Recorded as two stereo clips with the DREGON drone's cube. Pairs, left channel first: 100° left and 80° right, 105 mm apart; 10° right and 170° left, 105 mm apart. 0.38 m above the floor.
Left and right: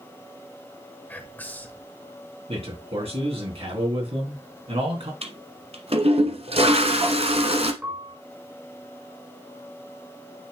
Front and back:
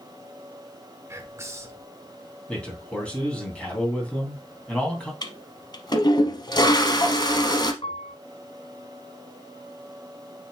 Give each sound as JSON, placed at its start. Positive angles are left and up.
{"t": 1.1, "sound": "whispering", "azimuth_deg": 150, "distance_m": 1.1}
{"t": 2.5, "sound": "a man speaking", "azimuth_deg": -90, "distance_m": 3.0}
{"t": 5.2, "sound": "a toilet flushing", "azimuth_deg": -60, "distance_m": 1.0}
{"t": 7.8, "sound": "a piano", "azimuth_deg": -10, "distance_m": 1.5}